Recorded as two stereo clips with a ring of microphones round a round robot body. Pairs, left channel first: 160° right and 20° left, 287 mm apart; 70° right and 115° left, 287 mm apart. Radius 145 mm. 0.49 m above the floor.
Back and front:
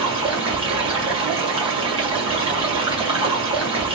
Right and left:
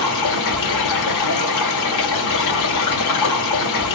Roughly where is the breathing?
I don't hear breathing.